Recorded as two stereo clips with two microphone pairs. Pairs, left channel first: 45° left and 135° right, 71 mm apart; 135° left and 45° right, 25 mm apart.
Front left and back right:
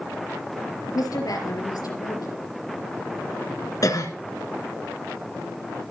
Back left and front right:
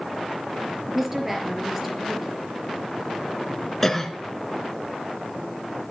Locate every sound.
0.9 s a woman speaking: 30° left, 4 m
3.8 s a cough: 55° left, 2 m